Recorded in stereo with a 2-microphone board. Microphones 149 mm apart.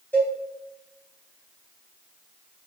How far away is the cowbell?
About 0.7 m.